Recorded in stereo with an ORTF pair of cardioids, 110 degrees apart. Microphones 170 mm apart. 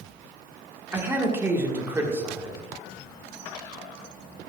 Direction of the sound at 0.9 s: 15° right.